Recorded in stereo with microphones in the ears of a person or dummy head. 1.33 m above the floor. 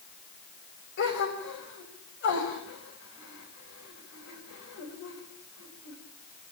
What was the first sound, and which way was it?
A gasp, 60° left (ahead or behind).